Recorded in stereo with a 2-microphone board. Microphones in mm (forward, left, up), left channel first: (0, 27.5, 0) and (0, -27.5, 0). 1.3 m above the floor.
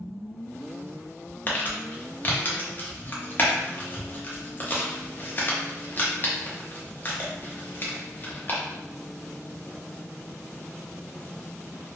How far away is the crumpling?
About 0.6 m.